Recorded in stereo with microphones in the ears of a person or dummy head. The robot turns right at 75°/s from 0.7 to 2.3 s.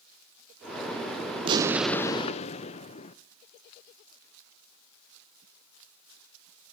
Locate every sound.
1.4 s an explosion: 30° right, 0.6 m; by 3.2 s 35° left, 0.6 m